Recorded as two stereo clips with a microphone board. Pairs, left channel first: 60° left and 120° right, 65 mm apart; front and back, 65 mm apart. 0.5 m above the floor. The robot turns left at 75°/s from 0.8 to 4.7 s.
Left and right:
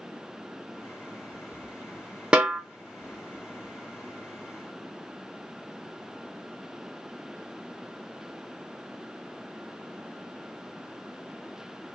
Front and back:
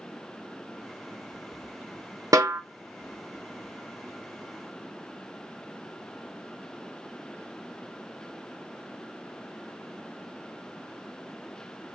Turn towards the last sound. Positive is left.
turn(degrees=-10)